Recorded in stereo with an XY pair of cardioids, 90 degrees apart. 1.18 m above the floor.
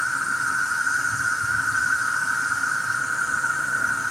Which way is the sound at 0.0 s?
5° left.